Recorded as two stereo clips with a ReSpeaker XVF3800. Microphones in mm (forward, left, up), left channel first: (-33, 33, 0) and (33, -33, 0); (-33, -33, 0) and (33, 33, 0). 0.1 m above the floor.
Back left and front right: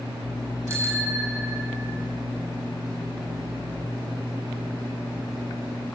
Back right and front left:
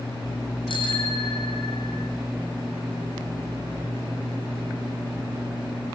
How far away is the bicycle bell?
About 4 m.